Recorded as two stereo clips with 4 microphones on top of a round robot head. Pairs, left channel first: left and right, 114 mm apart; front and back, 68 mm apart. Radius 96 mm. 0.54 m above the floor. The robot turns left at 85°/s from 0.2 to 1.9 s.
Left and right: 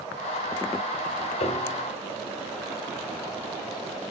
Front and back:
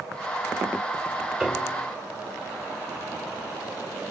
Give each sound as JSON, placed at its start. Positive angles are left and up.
{"t": 1.4, "sound": "a piano", "azimuth_deg": 105, "distance_m": 1.9}